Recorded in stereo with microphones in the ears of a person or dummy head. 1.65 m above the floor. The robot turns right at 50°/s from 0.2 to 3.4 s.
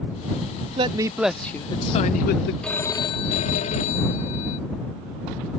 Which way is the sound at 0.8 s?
30° right.